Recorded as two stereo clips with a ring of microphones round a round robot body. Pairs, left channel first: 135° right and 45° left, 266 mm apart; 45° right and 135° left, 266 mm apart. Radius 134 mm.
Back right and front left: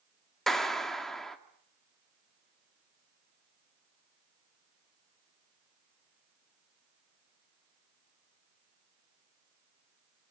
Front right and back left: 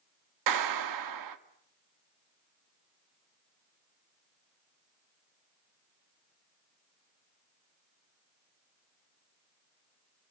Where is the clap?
135° left, 1.8 m.